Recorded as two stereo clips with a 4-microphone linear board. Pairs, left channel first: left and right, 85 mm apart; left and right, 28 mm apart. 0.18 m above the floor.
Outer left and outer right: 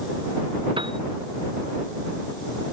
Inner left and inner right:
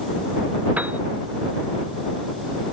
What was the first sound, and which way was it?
A piano, 85° right.